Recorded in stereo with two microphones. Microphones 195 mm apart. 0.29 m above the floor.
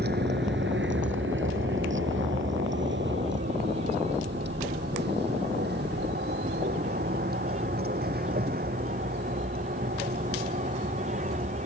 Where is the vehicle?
60° right (ahead or behind); by 11.7 s 45° right (ahead or behind).